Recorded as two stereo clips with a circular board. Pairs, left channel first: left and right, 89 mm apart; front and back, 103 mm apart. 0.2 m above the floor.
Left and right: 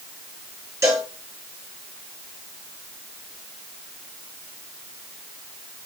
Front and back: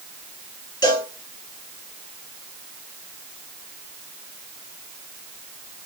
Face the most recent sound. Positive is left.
turn(degrees=-40)